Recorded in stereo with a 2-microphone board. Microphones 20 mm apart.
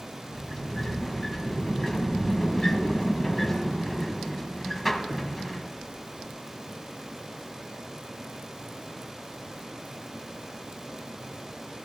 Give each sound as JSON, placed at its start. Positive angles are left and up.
{"t": 0.3, "sound": "a sliding door", "side_deg": 10, "distance_m": 1.4}